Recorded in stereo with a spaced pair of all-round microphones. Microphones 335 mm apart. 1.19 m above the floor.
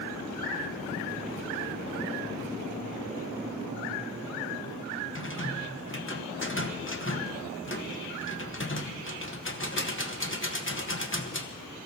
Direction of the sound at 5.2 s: 35° left (ahead or behind).